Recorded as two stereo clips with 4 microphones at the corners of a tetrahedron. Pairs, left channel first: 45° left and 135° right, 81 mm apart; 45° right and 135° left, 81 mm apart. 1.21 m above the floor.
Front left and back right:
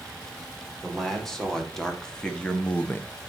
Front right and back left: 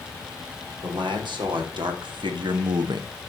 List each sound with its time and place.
0.8 s a man speaking: 130° left, 4 m; by 3.1 s 105° left, 0.7 m